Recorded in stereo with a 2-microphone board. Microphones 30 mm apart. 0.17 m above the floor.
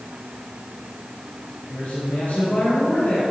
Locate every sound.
1.7 s a man speaking: 50° left (ahead or behind), 3.5 m; by 3.2 s 65° left (ahead or behind), 3.5 m